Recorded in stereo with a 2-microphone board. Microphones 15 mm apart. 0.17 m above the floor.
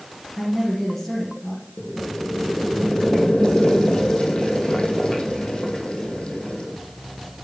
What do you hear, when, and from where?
0.4 s a woman speaking: 20° left (ahead or behind), 3 m
1.8 s boiling: 80° left, 1.6 m